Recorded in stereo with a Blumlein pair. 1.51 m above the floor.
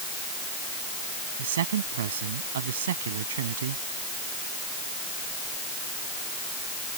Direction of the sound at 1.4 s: 60° right.